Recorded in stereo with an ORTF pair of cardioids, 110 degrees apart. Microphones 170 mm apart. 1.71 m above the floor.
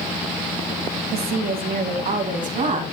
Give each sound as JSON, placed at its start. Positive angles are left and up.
{"t": 1.1, "sound": "a woman speaking", "azimuth_deg": -70, "distance_m": 2.0}